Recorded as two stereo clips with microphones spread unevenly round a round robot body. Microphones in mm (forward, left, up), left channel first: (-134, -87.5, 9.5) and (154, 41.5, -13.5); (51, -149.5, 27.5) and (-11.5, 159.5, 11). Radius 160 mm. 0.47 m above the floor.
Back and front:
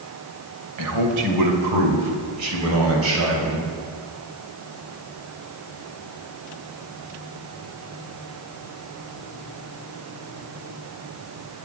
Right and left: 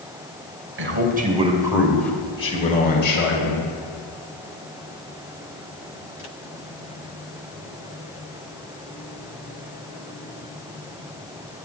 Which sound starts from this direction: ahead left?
A man speaking, at 0.8 s.